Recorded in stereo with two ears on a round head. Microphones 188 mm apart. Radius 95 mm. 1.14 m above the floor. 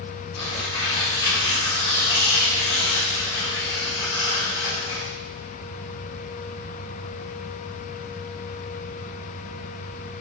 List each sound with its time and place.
0.3 s tearing paper: 55° left (ahead or behind), 1.5 m